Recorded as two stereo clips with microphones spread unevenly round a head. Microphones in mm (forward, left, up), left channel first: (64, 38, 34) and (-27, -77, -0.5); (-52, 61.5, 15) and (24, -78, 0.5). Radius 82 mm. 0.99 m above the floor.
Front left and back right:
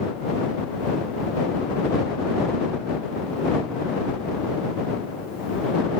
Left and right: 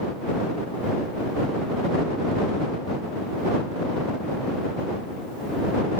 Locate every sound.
Only background noise.